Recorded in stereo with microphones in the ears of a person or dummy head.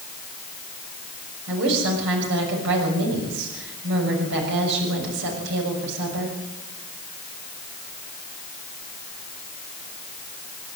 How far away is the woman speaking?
About 6.5 m.